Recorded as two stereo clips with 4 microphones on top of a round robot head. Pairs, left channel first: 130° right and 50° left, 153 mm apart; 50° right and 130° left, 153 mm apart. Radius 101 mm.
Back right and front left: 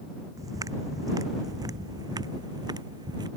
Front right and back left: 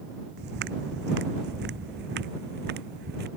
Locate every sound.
0.4 s footsteps: 115° left